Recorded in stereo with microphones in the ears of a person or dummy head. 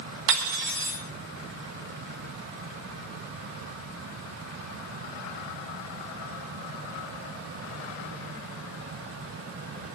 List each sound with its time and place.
0.3 s cutlery clinking: 60° right (ahead or behind), 1.8 m